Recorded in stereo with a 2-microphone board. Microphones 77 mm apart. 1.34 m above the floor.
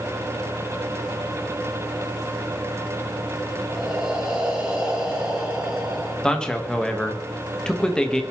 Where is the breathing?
15° right (ahead or behind), 3.5 m.